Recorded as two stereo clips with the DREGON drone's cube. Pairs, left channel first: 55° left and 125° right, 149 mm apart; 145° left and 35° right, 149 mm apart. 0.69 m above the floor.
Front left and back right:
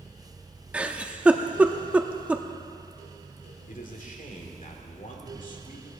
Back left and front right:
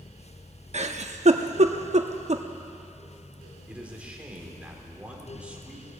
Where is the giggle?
45° right, 0.6 m.